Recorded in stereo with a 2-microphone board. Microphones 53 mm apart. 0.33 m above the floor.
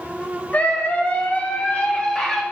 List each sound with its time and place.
0.5 s a scream: 30° left (ahead or behind), 1.3 m; by 2.4 s 15° left (ahead or behind), 1.2 m